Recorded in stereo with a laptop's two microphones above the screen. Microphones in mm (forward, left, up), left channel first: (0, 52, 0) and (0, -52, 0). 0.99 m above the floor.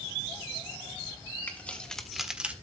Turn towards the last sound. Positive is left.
turn(degrees=-15)  # may be behind; listen again after turning